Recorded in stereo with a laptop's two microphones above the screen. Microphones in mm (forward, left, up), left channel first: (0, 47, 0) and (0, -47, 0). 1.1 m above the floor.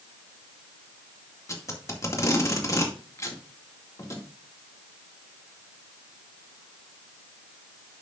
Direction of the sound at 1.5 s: 35° left (ahead or behind).